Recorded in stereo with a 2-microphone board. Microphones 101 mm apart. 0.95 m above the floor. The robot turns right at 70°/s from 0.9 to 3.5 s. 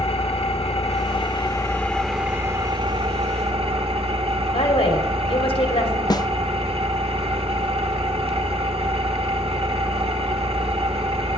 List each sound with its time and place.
0.0 s an engine running: 100° left, 1.2 m; by 11.4 s 80° right, 1.2 m
4.5 s a woman speaking: 70° left (ahead or behind), 2.5 m
6.1 s a snare drum: 40° left (ahead or behind), 0.5 m